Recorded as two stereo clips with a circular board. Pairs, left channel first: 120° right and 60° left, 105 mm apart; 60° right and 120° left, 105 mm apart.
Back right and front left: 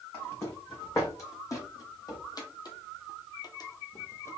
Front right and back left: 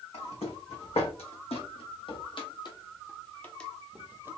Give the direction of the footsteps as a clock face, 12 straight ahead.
2 o'clock.